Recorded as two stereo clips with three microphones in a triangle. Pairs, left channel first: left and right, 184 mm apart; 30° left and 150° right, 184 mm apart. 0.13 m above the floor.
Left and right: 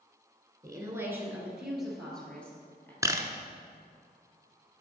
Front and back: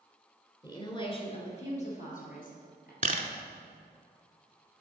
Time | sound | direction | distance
0.6 | a woman speaking | 30° right | 1.4 m
3.0 | a camera shutter | 155° right | 0.6 m